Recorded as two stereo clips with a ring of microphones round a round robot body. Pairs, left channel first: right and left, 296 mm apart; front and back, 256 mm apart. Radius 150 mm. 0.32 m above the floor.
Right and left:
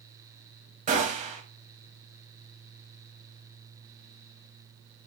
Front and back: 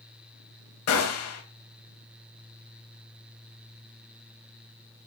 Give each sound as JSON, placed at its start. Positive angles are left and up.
{"t": 0.9, "sound": "a gunshot", "azimuth_deg": 25, "distance_m": 0.9}